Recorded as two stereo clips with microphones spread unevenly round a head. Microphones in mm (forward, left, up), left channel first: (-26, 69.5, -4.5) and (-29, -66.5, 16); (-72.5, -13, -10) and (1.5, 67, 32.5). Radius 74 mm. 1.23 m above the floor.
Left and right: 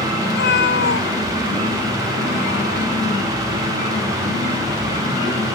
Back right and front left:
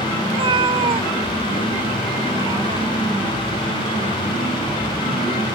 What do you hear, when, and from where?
0.3 s a cat meowing: 75° left; by 3.1 s 95° left